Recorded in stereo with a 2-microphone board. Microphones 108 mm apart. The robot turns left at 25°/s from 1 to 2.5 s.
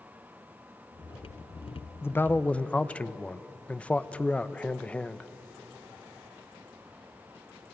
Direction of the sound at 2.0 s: 25° left (ahead or behind).